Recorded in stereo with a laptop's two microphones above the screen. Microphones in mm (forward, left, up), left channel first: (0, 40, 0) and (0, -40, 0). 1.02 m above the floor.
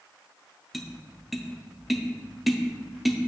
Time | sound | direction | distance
0.7 | tapping | centre (ahead or behind) | 0.5 m